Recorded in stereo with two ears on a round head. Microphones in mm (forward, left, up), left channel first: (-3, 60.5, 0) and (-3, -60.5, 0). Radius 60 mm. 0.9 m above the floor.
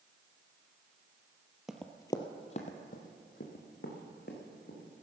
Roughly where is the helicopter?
I don't hear a helicopter.